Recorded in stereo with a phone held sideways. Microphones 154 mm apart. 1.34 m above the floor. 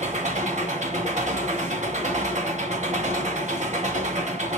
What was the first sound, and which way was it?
An engine running, 50° right (ahead or behind).